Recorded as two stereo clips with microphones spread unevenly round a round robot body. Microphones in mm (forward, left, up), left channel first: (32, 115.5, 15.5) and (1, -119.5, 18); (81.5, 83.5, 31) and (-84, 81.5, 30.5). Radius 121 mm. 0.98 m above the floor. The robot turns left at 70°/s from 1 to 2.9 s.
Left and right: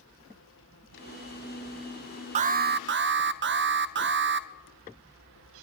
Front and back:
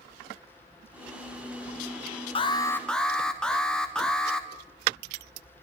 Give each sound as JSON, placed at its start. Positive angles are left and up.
{"t": 2.4, "sound": "an alarm", "azimuth_deg": -45, "distance_m": 0.6}